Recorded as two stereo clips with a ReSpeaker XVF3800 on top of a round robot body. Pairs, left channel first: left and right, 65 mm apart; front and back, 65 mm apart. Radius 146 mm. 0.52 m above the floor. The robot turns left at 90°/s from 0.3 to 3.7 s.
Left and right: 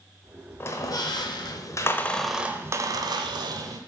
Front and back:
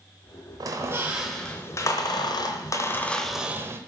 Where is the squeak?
150° left, 0.9 m; by 3.8 s 130° right, 0.9 m.